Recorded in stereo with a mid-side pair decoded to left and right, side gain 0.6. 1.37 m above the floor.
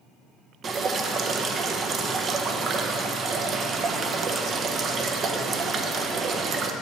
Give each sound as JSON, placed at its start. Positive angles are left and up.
{"t": 0.6, "sound": "dripping", "azimuth_deg": -40, "distance_m": 0.7}